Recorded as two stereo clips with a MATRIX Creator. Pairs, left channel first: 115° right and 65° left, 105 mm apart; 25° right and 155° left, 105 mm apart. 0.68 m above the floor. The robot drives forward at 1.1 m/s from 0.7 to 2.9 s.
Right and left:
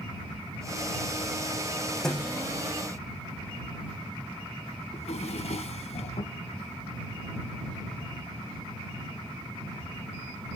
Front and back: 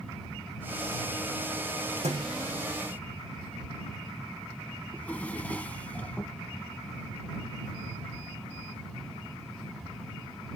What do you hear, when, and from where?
2.0 s a thud: 165° left, 6.5 m
4.9 s a drawer: 100° right, 1.6 m